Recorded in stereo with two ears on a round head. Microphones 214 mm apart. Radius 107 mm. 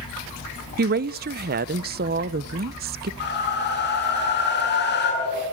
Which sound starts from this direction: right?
A woman speaking, at 0.8 s.